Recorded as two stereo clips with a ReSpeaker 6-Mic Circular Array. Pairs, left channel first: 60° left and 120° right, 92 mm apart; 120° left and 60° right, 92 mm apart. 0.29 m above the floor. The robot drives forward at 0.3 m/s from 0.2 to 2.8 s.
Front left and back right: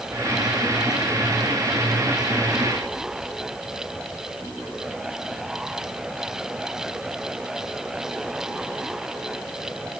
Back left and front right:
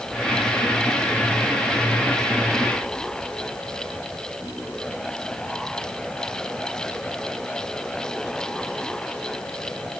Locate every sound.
Only background noise.